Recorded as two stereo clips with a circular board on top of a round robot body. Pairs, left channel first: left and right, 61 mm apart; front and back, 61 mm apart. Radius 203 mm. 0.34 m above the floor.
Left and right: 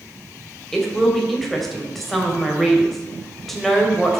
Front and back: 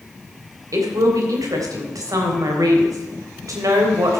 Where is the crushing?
No crushing in this recording.